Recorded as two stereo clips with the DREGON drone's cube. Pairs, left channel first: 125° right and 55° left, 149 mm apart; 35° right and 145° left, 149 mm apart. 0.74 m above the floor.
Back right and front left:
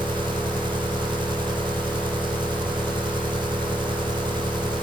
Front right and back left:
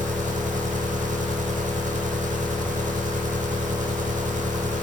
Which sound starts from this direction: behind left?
An engine running, at 0.0 s.